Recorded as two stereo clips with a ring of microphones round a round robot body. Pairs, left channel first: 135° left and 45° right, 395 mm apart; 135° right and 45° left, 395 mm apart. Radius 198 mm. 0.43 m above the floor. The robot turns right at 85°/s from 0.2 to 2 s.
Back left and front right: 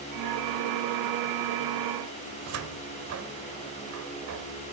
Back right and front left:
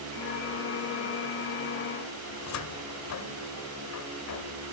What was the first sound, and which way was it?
A cupboard door, 90° right.